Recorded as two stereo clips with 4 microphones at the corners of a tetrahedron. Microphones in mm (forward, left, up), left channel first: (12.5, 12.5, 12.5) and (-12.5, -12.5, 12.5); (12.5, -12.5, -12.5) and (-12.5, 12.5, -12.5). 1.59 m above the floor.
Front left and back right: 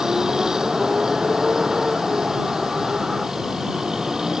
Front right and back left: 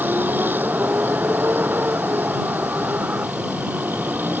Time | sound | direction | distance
0.0 | a vehicle | 155° left | ?